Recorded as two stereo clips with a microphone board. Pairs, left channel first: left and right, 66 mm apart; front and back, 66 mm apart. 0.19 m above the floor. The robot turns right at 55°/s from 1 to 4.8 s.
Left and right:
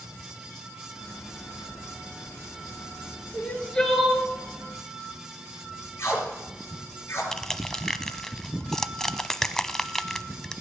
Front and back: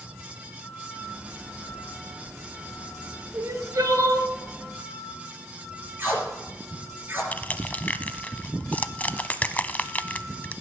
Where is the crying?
145° left, 1.6 m; by 4.3 s 165° right, 1.6 m.